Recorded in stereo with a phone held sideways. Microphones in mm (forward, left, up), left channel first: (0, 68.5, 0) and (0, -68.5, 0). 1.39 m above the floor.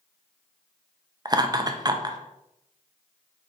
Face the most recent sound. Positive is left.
turn(degrees=-30)  # may be behind; listen again after turning